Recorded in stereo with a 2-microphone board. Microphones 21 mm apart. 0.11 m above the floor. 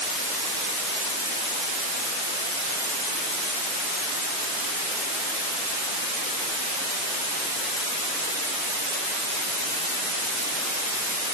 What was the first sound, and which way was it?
Only background noise.